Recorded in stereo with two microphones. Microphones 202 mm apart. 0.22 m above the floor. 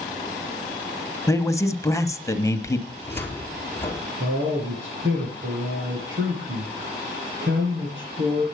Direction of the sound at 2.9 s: 10° left (ahead or behind).